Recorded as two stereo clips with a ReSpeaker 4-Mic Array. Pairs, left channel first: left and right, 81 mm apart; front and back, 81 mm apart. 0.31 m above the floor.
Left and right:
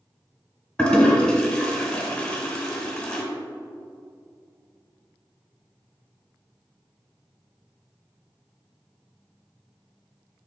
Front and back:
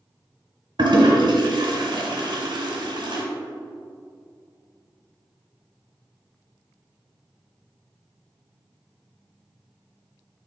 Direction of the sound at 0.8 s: 170° left.